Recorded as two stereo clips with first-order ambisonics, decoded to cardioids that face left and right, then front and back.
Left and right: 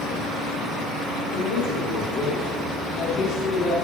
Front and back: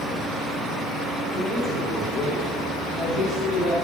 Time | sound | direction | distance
1.3 | a man speaking | 70° left | 1.9 m